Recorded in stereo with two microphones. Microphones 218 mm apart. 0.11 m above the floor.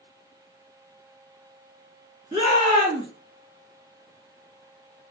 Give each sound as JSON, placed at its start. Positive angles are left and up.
{"t": 2.3, "sound": "a shout", "side_deg": -25, "distance_m": 1.2}